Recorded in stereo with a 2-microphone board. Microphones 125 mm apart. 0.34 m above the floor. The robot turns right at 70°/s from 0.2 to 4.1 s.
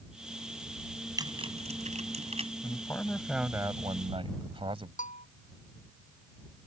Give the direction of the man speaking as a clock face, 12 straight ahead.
7 o'clock.